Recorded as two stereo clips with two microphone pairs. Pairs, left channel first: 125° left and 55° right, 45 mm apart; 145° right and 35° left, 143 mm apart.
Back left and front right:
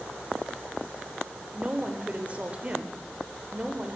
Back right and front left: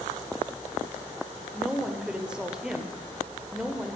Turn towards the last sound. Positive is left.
turn(degrees=-45)